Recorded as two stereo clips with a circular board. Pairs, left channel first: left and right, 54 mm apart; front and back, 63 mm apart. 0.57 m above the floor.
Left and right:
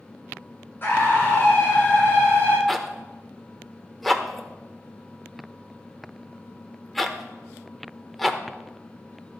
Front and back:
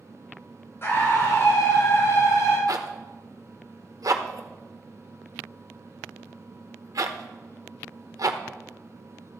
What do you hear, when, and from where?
0.8 s a scream: 45° left, 3 m; by 2.6 s 35° left, 4 m
2.7 s a zipper: 175° left, 0.9 m